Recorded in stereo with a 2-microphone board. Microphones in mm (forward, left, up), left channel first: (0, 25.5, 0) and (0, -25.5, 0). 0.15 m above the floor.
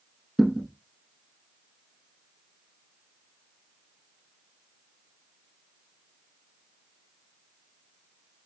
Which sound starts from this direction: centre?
A thud, at 0.4 s.